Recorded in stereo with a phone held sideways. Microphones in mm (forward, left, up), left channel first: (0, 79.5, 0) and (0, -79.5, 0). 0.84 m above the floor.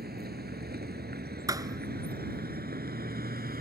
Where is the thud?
20° right (ahead or behind).